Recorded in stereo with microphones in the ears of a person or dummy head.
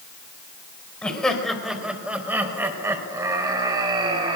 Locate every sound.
1.0 s laughter: 5° right (ahead or behind), 5 m; by 4.4 s 35° right (ahead or behind), 5.5 m